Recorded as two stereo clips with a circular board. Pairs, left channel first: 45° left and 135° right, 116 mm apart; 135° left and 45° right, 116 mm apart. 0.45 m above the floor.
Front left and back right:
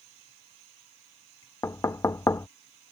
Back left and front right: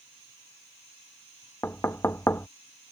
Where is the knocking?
85° left.